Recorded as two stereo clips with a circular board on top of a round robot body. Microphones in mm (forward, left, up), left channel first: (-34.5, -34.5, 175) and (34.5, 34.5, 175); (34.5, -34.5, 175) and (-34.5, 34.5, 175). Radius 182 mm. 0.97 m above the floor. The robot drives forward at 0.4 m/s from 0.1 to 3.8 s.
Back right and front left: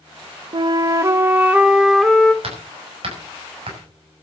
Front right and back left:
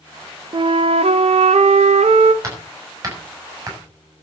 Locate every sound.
0.5 s a flute: 90° left, 0.6 m; by 2.3 s 140° left, 1.0 m
2.4 s hammering: 75° left, 7 m; by 4.2 s 80° left, 7 m